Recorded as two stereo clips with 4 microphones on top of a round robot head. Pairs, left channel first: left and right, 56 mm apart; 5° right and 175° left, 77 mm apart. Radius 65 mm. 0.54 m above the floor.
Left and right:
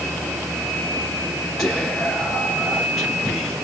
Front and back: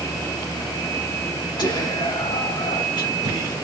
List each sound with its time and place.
1.6 s whispering: 5° left, 2.5 m